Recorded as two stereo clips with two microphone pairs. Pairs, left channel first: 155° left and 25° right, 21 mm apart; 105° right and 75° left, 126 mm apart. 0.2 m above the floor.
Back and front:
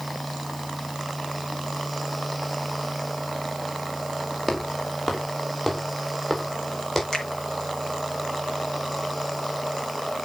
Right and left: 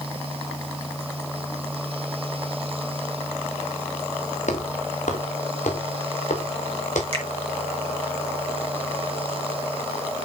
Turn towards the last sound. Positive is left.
turn(degrees=100)